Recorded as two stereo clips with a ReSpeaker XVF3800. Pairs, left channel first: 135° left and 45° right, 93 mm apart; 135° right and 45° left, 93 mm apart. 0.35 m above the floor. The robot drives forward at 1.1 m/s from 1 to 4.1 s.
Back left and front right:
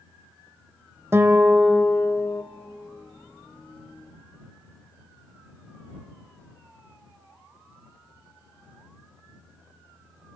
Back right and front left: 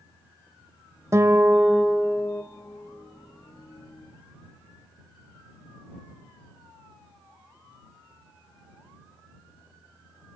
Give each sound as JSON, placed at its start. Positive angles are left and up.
{"t": 1.1, "sound": "a guitar", "azimuth_deg": 5, "distance_m": 1.1}